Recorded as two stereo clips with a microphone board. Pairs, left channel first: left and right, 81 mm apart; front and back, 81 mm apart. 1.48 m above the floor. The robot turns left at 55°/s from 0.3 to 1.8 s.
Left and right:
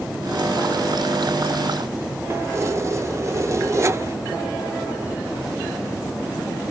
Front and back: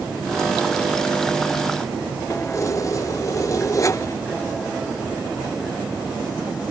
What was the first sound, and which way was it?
Keys jangling, 45° right.